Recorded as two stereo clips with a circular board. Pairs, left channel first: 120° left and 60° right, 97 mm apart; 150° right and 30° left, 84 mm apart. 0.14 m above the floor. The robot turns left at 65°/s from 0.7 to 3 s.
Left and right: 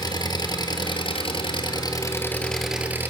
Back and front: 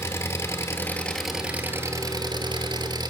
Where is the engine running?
155° left, 1.4 m; by 3.1 s 5° left, 1.4 m.